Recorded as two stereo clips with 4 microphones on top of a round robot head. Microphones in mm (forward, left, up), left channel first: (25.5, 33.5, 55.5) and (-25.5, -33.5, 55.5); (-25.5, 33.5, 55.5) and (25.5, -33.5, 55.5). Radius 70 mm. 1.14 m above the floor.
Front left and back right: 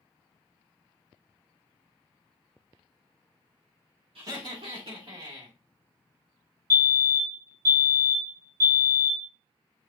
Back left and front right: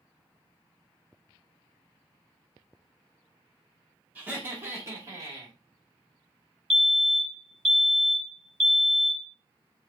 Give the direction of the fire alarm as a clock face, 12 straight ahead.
5 o'clock.